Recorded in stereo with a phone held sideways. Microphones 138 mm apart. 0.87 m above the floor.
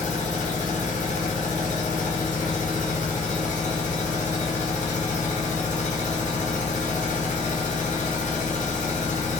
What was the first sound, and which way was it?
A machine running, 65° left (ahead or behind).